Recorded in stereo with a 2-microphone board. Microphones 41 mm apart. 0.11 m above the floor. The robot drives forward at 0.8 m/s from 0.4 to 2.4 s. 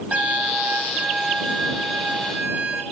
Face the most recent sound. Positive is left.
turn(degrees=-20)  # may be behind; listen again after turning